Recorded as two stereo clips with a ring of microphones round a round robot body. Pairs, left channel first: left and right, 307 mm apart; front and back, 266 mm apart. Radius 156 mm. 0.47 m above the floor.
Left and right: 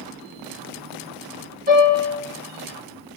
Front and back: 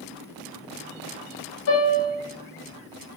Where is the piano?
25° right, 1.3 m.